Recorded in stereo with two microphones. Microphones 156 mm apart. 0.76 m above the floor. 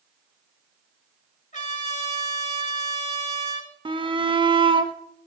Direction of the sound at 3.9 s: 30° right (ahead or behind).